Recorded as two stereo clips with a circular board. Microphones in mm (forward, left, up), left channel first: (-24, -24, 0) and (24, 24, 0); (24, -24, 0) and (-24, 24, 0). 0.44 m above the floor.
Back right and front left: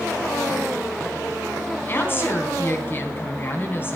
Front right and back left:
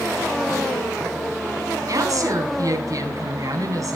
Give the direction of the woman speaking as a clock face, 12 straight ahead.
6 o'clock.